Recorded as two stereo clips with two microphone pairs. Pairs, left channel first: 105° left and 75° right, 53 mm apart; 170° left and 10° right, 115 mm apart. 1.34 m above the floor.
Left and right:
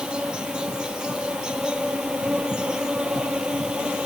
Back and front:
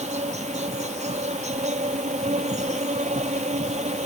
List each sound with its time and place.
0.0 s an insect: 5° right